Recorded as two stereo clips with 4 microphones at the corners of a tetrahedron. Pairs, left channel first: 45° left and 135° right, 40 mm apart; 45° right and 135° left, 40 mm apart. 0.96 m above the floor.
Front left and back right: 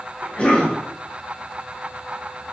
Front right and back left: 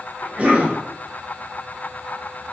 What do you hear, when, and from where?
0.2 s a cough: 95° left, 0.6 m